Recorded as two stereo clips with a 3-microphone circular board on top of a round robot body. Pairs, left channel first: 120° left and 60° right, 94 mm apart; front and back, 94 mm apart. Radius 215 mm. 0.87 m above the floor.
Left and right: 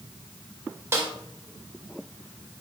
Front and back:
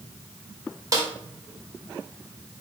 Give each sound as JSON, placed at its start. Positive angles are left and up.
{"t": 0.9, "sound": "a snare drum", "azimuth_deg": -125, "distance_m": 2.0}